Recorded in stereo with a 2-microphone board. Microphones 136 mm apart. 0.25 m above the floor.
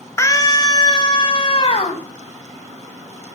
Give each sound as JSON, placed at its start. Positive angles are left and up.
{"t": 0.2, "sound": "a scream", "side_deg": 20, "distance_m": 1.4}